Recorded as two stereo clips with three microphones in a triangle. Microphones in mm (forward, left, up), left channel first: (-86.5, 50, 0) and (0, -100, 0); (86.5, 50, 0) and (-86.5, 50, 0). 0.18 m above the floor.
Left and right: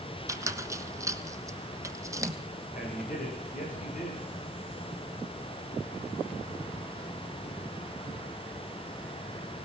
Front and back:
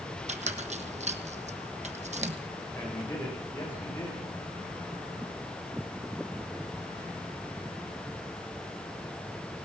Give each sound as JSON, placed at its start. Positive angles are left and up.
{"t": 0.3, "sound": "a squeak", "azimuth_deg": -130, "distance_m": 1.1}
{"t": 2.7, "sound": "a man speaking", "azimuth_deg": 80, "distance_m": 9.0}